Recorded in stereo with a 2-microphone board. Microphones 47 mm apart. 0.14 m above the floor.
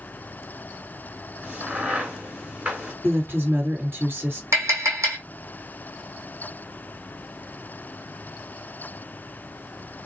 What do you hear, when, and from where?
1.4 s a crack: 25° right (ahead or behind), 1.5 m
3.0 s a woman speaking: 45° right (ahead or behind), 2 m
4.5 s tapping: 80° right, 1.5 m